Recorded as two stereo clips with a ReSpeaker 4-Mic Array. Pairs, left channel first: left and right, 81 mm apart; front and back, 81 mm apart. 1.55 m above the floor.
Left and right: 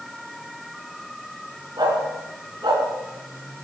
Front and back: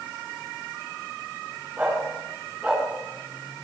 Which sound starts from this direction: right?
A dog barking, at 1.8 s.